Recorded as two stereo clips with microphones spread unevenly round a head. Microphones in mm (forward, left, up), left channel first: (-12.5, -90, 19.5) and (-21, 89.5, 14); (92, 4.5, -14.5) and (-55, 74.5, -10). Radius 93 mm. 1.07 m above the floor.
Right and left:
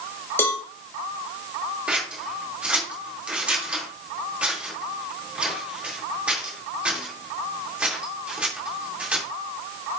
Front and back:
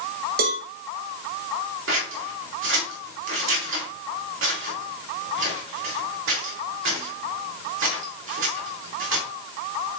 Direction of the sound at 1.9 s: 175° left.